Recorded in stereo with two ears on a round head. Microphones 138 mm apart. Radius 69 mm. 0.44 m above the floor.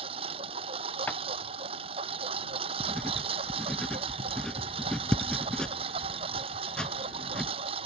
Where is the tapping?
10° left (ahead or behind).